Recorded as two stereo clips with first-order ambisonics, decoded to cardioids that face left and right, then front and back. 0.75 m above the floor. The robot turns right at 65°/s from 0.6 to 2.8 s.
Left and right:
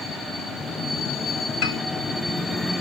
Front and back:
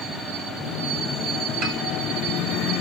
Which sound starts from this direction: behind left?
A piano, at 1.6 s.